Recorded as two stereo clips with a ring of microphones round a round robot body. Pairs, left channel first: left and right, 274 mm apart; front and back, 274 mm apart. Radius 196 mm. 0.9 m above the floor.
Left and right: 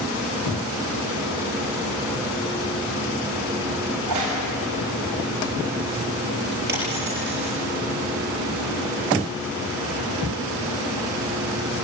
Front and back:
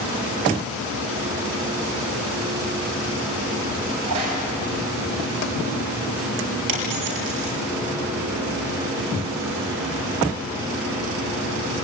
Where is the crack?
130° right, 7 m.